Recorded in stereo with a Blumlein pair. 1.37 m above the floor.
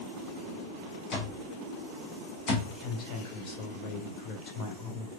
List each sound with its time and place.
1.1 s an alarm clock: 30° left, 1.4 m
2.7 s a woman speaking: 25° left, 1.1 m